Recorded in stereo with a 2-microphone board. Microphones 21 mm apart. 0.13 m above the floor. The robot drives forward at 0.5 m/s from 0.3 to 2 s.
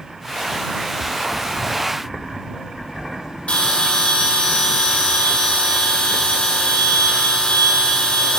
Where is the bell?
75° left (ahead or behind), 3 m.